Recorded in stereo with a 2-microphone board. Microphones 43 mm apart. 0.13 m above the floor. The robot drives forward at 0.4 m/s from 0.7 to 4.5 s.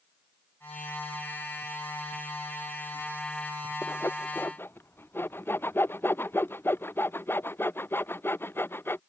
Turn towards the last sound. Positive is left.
turn(degrees=65)  # may be behind; listen again after turning